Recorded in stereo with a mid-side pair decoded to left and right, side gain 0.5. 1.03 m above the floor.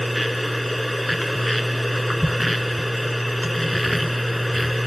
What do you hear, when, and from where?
0.0 s a machine running: 10° left